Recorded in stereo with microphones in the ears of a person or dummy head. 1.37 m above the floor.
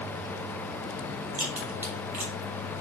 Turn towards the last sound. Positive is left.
turn(degrees=-15)  # may be behind; listen again after turning